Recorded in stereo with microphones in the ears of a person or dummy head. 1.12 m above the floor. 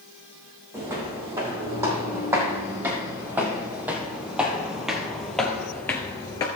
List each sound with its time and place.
0.7 s footsteps: 20° right (ahead or behind), 3.5 m; by 6.5 s 15° left (ahead or behind), 1.2 m